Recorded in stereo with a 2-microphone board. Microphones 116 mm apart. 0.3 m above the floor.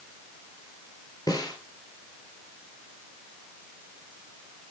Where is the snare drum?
40° left (ahead or behind), 3 m.